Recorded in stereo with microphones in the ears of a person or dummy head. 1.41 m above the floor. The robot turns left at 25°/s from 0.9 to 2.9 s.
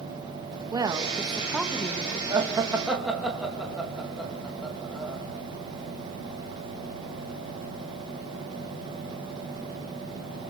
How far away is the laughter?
About 2.5 m.